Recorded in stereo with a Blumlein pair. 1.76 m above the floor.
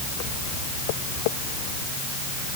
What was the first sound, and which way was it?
Only background noise.